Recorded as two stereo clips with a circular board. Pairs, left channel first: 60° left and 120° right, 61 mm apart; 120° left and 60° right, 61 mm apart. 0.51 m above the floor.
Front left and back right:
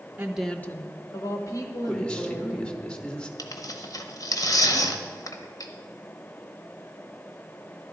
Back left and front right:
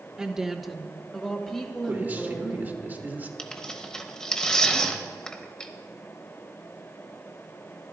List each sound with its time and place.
0.2 s a woman speaking: 125° right, 0.7 m; by 2.6 s 40° left, 3.5 m
1.9 s a man speaking: 10° right, 1.3 m
3.4 s tearing paper: 40° left, 0.9 m